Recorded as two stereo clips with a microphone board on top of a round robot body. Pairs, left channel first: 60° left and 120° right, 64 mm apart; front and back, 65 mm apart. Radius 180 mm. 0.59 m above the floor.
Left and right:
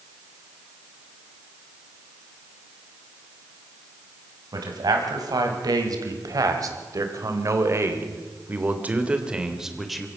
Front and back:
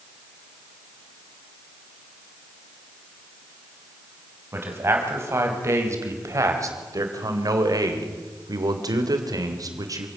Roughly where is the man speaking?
Behind right.